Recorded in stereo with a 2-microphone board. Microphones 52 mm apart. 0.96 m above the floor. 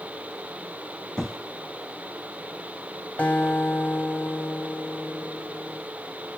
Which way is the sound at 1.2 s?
5° left (ahead or behind).